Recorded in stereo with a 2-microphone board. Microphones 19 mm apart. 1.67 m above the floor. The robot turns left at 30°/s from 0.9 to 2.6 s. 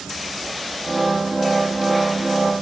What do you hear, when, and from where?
Only background noise.